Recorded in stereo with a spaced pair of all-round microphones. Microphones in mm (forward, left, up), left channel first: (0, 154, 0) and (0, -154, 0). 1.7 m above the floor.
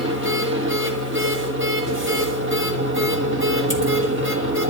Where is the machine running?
40° right (ahead or behind), 1.5 m.